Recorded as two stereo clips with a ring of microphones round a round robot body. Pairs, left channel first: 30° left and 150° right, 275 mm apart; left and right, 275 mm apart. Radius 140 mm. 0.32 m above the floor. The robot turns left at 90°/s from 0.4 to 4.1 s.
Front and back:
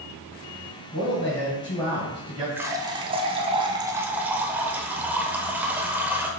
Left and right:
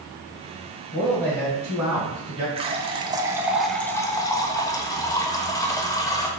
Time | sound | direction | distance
0.9 | a man speaking | 40° left | 1.9 m
2.6 | a running tap | 80° right | 0.6 m